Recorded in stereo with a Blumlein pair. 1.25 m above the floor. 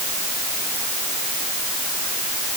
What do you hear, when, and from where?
Only background noise.